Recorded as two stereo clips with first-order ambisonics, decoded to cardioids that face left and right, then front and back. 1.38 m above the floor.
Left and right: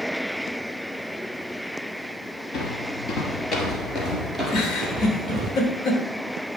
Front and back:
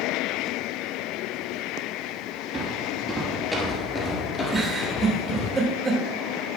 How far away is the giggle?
About 1.3 m.